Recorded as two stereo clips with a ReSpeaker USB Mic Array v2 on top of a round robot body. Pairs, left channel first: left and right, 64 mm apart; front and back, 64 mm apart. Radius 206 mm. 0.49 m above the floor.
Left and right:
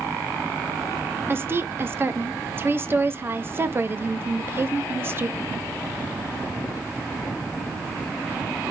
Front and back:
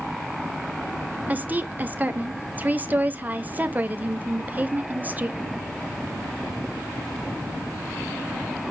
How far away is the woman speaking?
About 0.8 m.